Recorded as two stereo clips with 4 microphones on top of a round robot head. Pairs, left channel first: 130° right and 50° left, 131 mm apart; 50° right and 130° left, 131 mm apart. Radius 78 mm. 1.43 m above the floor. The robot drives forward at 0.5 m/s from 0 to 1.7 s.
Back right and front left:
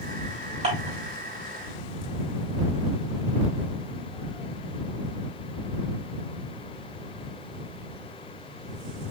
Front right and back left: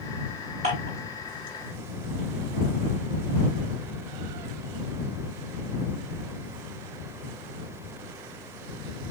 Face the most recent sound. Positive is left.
turn(degrees=105)